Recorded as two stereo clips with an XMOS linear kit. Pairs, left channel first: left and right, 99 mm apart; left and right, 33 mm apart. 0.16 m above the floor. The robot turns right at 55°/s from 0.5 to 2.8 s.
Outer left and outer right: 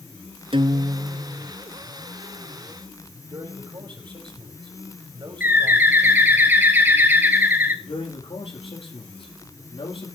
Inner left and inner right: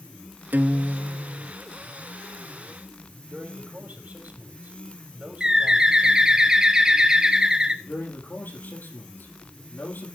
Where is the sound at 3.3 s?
55° right (ahead or behind), 4.5 m.